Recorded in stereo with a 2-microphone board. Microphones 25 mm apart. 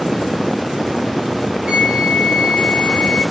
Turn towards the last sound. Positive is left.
turn(degrees=-35)  # may be behind; listen again after turning